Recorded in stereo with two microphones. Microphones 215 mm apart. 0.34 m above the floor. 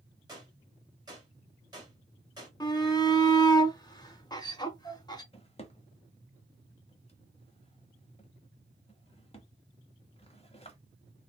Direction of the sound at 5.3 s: 30° left (ahead or behind).